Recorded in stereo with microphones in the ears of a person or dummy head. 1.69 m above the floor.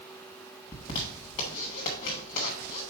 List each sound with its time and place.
0.7 s a zipper: 20° left (ahead or behind), 1.2 m